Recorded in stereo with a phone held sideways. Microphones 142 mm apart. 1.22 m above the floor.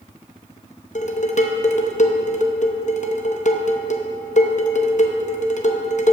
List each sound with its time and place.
0.9 s dishes clattering: 55° left (ahead or behind), 0.7 m